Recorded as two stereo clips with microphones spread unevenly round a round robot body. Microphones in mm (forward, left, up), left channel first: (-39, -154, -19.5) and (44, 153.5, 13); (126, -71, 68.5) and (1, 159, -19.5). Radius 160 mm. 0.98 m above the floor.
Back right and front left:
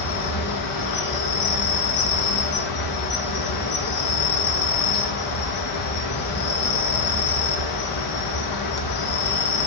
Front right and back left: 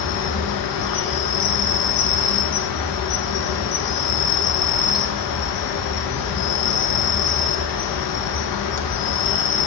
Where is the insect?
90° right, 1.1 m.